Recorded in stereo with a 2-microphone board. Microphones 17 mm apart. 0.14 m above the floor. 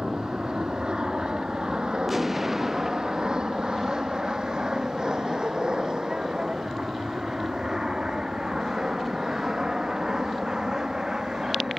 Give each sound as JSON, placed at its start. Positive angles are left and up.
{"t": 0.0, "sound": "an aircraft", "side_deg": -60}
{"t": 2.1, "sound": "an explosion", "side_deg": -15}